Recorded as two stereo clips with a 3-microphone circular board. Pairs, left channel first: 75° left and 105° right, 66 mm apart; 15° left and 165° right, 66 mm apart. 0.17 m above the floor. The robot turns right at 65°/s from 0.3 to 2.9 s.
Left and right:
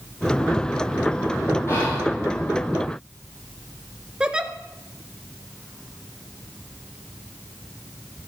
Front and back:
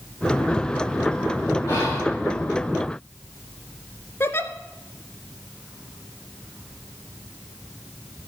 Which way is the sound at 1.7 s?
25° left.